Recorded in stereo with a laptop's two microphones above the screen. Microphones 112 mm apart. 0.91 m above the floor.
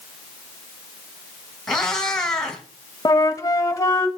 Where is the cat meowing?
5° left (ahead or behind), 1.7 m.